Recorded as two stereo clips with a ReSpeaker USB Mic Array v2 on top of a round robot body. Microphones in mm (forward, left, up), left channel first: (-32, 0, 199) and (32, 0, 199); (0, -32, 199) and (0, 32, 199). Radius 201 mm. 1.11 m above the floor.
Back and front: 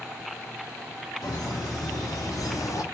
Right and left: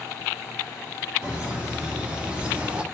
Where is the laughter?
165° left, 1.6 m.